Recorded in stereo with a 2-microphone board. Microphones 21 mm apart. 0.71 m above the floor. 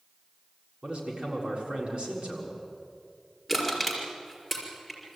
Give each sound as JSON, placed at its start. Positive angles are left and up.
{"t": 0.8, "sound": "a man speaking", "side_deg": -55, "distance_m": 6.5}
{"t": 3.5, "sound": "crushing", "side_deg": -5, "distance_m": 5.5}